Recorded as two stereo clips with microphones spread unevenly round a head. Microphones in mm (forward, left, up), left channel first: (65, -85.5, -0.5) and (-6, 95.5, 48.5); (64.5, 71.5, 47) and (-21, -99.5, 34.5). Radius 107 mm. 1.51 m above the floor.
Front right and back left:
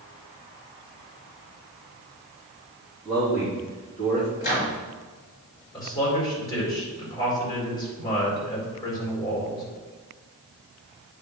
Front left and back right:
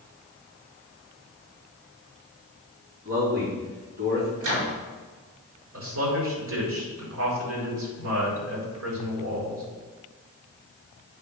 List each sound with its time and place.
3.0 s a man speaking: 155° right, 4 m
4.4 s a microwave: 130° right, 4.5 m
5.7 s a man speaking: 140° right, 4 m